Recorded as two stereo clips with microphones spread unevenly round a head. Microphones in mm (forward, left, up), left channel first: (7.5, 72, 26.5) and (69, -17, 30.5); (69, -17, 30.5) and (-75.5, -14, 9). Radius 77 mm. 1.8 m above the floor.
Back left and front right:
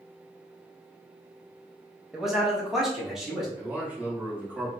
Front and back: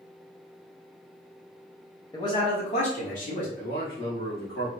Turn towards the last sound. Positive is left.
turn(degrees=20)